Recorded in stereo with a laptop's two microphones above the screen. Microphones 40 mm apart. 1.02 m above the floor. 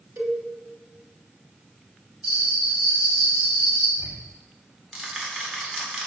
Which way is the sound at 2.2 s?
20° right (ahead or behind).